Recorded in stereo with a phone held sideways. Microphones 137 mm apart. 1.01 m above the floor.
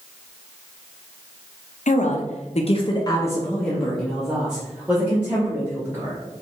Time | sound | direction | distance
1.9 | a woman speaking | 65° left (ahead or behind) | 0.8 m